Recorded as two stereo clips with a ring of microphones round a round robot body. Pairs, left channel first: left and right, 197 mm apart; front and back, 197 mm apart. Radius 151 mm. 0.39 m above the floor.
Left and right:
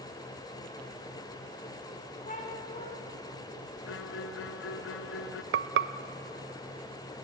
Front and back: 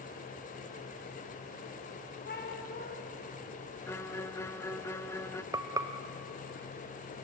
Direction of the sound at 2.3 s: 40° left.